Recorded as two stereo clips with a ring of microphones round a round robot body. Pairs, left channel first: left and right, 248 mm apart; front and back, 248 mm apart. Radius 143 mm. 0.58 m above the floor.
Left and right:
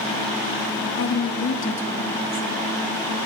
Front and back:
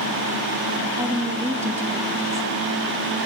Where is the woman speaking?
105° left, 1.2 m.